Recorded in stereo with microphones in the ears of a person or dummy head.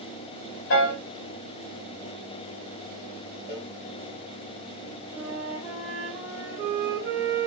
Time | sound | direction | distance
0.7 | a piano | 60° left (ahead or behind) | 0.9 m
3.5 | a cowbell | 25° right (ahead or behind) | 0.9 m
5.1 | a flute | 10° right (ahead or behind) | 1.0 m